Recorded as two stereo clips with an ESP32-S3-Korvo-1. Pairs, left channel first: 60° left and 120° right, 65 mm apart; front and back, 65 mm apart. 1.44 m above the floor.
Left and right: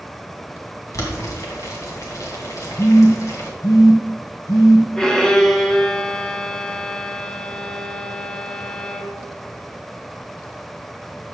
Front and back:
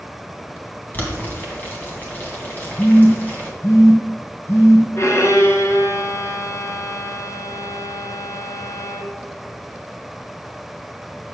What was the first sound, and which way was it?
Boiling, 55° left.